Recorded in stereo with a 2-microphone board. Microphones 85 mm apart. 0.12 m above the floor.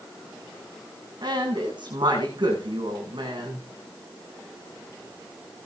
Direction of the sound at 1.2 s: 60° right (ahead or behind).